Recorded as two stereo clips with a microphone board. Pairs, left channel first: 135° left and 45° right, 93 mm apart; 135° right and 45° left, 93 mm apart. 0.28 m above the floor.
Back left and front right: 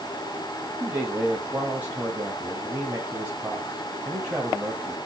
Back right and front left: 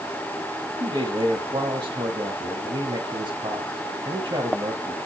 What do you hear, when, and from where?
0.8 s a man speaking: 25° left, 1.8 m